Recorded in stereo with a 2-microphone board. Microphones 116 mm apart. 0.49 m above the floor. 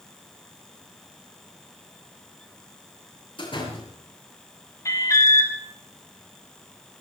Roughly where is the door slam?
Left.